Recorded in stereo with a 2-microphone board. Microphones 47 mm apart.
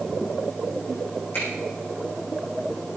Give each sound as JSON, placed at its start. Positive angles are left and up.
{"t": 1.3, "sound": "a finger snap", "side_deg": 45, "distance_m": 8.5}